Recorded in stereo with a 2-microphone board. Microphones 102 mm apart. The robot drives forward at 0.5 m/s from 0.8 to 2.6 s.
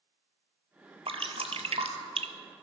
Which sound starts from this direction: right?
Dripping, at 1.1 s.